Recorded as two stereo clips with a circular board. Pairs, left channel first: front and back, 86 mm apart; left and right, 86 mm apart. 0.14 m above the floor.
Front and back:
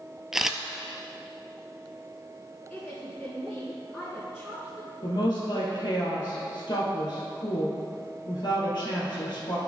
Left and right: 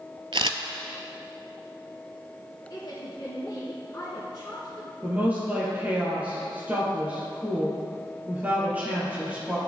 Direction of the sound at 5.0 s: 20° right.